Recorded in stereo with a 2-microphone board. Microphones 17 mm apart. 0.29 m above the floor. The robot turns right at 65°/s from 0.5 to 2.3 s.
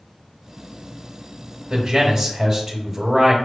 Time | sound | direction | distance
1.7 | a man speaking | 25° right (ahead or behind) | 1.0 m